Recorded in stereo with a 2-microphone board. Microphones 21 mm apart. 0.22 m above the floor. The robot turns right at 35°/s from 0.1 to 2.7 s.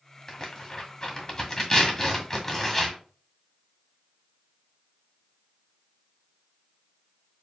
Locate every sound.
0.3 s tearing paper: 20° left (ahead or behind), 1.7 m